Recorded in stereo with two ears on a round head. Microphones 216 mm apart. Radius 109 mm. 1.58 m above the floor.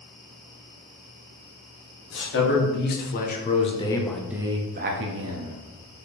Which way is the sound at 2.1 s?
50° left (ahead or behind).